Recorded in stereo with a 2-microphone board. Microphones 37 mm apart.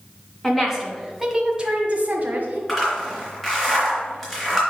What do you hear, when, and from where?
0.4 s a woman speaking: 5° left (ahead or behind), 2 m; by 2.6 s 55° right (ahead or behind), 1.5 m
2.7 s a zipper: 5° left (ahead or behind), 3.5 m